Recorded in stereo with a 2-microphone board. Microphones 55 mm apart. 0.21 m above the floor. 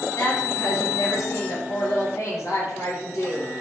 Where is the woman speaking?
65° left (ahead or behind), 3.5 m.